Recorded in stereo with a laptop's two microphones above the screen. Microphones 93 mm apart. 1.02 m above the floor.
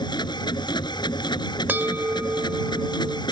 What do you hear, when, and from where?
0.0 s a machine running: 50° left (ahead or behind)
1.7 s a bell: 20° right (ahead or behind)